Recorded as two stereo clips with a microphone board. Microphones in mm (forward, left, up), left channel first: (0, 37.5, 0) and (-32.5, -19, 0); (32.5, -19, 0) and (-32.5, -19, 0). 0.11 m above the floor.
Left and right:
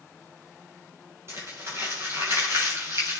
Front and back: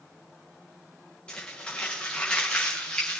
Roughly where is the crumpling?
Right.